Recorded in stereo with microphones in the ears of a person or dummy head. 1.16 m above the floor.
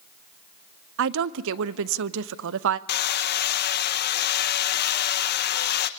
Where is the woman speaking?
70° right (ahead or behind), 0.6 m.